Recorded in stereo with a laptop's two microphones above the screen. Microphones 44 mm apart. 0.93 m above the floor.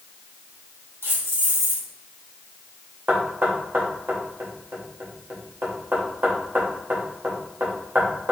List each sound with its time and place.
1.0 s keys jangling: 70° right (ahead or behind), 1.0 m
3.1 s knocking: 55° right (ahead or behind), 0.7 m